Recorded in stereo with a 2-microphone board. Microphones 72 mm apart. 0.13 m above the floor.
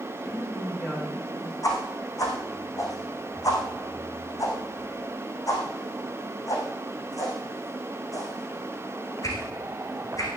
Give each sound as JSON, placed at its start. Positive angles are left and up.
{"t": 0.1, "sound": "a woman speaking", "side_deg": 20, "distance_m": 8.5}
{"t": 1.6, "sound": "a whoosh", "side_deg": 50, "distance_m": 5.0}